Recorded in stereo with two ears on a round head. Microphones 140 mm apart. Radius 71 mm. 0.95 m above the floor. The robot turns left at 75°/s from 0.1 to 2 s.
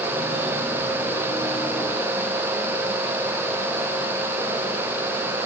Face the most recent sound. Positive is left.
No sound to turn to.